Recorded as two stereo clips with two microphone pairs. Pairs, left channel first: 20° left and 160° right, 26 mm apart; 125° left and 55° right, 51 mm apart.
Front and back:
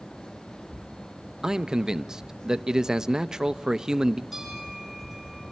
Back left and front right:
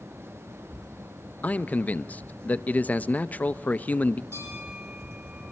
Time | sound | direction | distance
1.4 | a man speaking | 155° left | 0.6 m
4.3 | a bell | 75° right | 9 m